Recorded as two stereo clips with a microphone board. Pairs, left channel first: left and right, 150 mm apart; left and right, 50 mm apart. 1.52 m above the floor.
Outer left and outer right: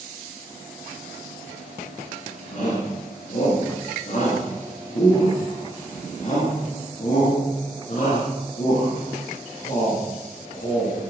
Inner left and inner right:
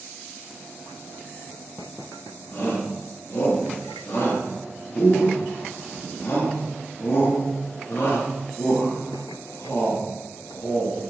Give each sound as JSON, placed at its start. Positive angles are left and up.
{"t": 2.5, "sound": "a shout", "side_deg": 55, "distance_m": 3.5}